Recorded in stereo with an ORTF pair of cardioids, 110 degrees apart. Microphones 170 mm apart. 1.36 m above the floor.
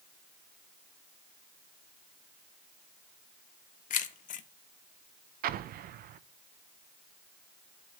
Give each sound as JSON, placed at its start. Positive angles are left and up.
{"t": 3.9, "sound": "keys jangling", "azimuth_deg": 50, "distance_m": 1.3}
{"t": 5.4, "sound": "an explosion", "azimuth_deg": -65, "distance_m": 0.8}